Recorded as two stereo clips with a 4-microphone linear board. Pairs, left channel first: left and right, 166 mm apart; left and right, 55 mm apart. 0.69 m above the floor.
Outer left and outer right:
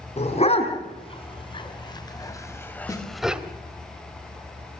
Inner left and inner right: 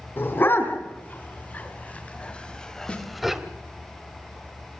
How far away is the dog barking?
About 3.5 m.